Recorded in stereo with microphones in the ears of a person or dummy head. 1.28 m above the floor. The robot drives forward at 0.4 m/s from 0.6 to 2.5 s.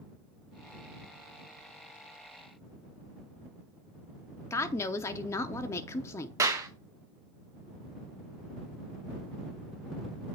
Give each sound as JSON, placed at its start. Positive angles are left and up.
{"t": 4.5, "sound": "a woman speaking", "side_deg": 20, "distance_m": 0.6}
{"t": 6.4, "sound": "a clap", "side_deg": -20, "distance_m": 0.9}